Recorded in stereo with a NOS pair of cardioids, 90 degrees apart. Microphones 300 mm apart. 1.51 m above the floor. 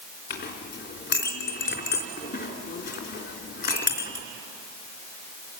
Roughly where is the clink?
Ahead left.